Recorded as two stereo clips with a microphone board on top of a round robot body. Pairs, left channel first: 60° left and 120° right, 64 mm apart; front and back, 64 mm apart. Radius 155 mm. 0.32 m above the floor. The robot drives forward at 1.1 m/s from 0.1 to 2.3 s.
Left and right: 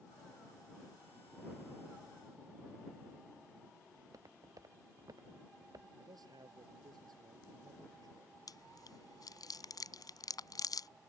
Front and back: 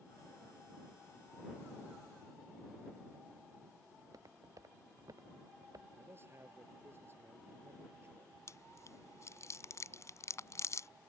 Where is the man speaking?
130° right.